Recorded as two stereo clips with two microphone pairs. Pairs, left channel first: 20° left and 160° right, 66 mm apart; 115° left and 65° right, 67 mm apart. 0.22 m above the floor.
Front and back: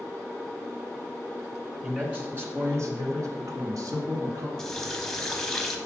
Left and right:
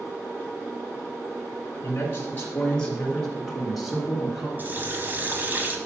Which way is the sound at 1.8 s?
140° left.